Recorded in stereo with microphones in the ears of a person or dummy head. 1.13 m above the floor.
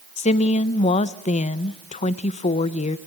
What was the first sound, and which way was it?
A woman speaking, 35° left (ahead or behind).